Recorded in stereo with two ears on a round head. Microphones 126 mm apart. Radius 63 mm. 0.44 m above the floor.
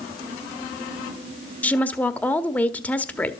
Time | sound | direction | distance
1.6 | a woman speaking | 10° left (ahead or behind) | 1.4 m